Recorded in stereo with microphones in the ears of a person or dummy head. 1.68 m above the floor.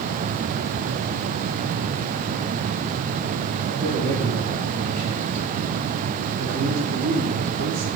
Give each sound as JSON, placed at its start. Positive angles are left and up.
{"t": 3.7, "sound": "a man speaking", "side_deg": -50, "distance_m": 5.0}